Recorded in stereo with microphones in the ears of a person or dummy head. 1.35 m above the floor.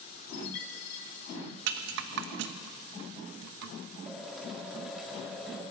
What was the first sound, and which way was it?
A chime, 65° left (ahead or behind).